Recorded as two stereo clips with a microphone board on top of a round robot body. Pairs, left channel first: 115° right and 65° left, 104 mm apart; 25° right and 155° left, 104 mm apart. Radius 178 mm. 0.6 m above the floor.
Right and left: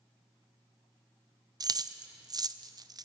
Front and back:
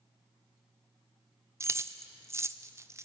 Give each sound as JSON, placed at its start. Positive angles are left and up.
{"t": 1.6, "sound": "keys jangling", "azimuth_deg": 105, "distance_m": 0.5}